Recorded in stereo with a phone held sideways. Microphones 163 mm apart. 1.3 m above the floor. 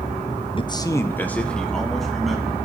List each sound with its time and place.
0.6 s a man speaking: 35° left (ahead or behind), 0.7 m; by 2.5 s centre (ahead or behind), 2.5 m